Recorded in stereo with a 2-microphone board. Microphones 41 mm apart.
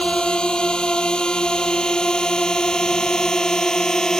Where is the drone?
20° left (ahead or behind); by 4.2 s 15° left (ahead or behind).